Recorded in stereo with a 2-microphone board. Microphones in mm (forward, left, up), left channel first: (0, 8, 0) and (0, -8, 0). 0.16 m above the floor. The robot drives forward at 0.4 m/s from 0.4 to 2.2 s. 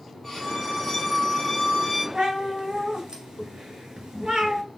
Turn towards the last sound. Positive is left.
turn(degrees=-55)  # may be behind; listen again after turning